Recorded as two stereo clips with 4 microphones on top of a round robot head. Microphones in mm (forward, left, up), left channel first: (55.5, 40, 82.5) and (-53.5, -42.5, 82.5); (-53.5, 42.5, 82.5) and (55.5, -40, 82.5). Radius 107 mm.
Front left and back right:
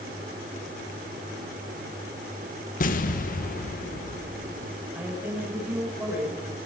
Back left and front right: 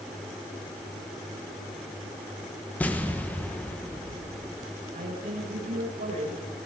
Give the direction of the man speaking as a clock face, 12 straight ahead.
2 o'clock.